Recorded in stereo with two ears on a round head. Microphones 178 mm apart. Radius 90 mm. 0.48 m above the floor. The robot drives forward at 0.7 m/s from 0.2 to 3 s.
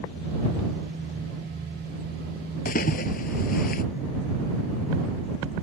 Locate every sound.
2.6 s a splash: 40° left (ahead or behind); by 3.8 s 45° left (ahead or behind)